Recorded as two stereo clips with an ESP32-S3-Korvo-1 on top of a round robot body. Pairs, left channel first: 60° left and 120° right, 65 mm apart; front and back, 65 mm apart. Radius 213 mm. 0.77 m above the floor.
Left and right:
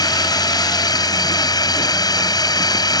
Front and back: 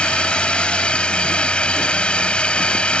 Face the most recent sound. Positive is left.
turn(degrees=75)